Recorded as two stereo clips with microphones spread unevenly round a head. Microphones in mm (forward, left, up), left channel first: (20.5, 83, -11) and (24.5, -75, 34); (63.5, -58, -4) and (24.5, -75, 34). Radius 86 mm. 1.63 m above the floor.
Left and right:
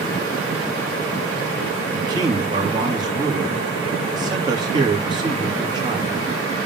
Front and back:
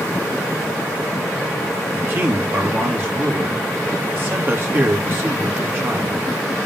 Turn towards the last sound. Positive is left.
turn(degrees=-155)